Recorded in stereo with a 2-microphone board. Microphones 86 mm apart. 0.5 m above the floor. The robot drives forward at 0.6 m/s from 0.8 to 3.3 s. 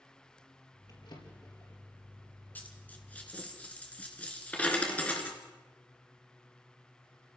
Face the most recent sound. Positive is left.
turn(degrees=15)  # may be behind; listen again after turning